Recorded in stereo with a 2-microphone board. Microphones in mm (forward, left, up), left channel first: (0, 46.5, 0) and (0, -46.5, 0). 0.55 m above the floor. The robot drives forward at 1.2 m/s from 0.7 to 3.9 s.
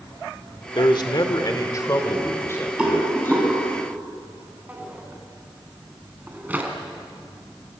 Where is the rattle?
10° right (ahead or behind), 5 m.